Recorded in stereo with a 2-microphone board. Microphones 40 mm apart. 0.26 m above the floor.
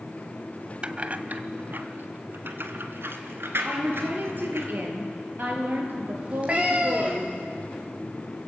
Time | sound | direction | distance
0.8 | keys jangling | 30° right (ahead or behind) | 1.0 m
3.6 | a woman speaking | 50° right (ahead or behind) | 5.5 m
6.2 | a cat meowing | 25° right (ahead or behind) | 3.5 m